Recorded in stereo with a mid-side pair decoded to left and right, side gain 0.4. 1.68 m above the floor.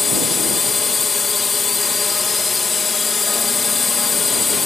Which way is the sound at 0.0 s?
30° left.